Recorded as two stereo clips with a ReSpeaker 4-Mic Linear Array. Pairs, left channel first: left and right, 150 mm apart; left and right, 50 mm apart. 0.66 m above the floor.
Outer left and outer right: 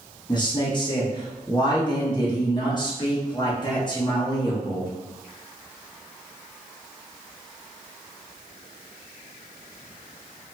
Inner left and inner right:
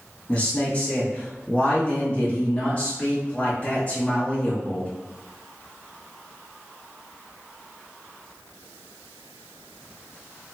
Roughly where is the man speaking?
Left.